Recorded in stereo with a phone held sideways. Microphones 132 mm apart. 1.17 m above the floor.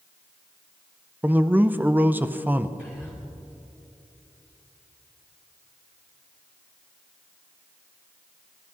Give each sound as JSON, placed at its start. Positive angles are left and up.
{"t": 1.2, "sound": "a man speaking", "side_deg": -15, "distance_m": 0.5}
{"t": 2.8, "sound": "whispering", "side_deg": -10, "distance_m": 4.5}